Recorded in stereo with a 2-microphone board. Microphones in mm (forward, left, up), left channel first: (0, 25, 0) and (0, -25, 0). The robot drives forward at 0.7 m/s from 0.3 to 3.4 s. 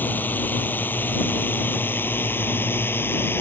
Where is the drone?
40° left (ahead or behind); by 3.4 s 50° left (ahead or behind).